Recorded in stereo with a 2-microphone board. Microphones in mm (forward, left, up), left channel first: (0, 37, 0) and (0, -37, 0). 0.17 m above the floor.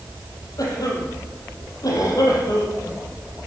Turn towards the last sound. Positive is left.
turn(degrees=55)  # may be behind; listen again after turning